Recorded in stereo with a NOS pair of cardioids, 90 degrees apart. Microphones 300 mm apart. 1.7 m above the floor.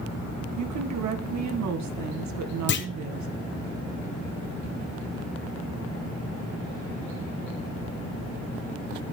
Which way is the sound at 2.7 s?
40° left.